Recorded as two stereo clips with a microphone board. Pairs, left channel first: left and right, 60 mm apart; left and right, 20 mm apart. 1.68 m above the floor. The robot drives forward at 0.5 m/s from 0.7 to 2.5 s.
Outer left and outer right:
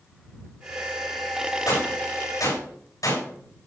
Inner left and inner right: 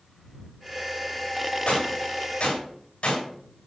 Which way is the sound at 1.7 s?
85° left.